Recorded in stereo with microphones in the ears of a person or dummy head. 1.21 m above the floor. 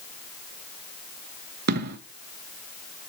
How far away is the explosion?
About 0.6 m.